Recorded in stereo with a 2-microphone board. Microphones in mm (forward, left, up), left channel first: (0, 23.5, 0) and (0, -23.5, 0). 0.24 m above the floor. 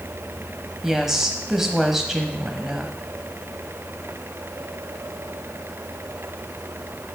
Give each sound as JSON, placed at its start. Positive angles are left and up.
{"t": 0.8, "sound": "a woman speaking", "side_deg": -10, "distance_m": 1.0}